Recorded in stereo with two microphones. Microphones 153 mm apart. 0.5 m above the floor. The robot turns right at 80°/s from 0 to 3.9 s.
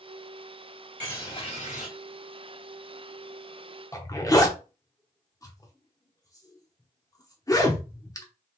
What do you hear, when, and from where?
1.0 s a bird: 10° left, 3 m; by 1.9 s 80° left, 3 m
3.9 s a zipper: 25° left (ahead or behind), 0.8 m